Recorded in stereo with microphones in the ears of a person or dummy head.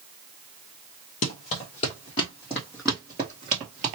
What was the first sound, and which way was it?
Running footsteps, 35° left (ahead or behind).